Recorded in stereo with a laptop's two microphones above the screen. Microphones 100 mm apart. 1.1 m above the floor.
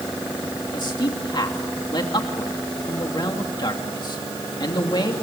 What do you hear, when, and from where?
0.7 s a man speaking: 50° left (ahead or behind), 2.5 m